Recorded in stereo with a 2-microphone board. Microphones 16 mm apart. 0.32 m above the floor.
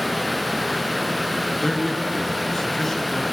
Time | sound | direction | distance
1.6 | a man speaking | 30° left (ahead or behind) | 4.5 m